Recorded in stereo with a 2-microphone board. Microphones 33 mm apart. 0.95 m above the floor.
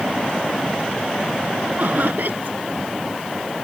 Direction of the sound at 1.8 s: 60° right (ahead or behind).